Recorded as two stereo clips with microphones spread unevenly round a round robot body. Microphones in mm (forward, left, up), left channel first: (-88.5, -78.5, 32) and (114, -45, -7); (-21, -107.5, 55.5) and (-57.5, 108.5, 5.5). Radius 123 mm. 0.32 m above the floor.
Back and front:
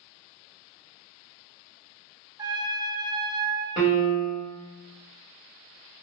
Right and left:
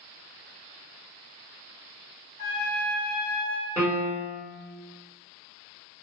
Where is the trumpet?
65° right, 0.9 m.